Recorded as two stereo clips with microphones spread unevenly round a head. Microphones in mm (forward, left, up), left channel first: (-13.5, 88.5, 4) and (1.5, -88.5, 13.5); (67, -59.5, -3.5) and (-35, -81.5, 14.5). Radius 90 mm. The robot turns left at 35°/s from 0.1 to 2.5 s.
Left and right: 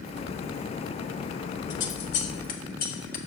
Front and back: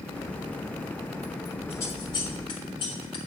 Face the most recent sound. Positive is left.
turn(degrees=55)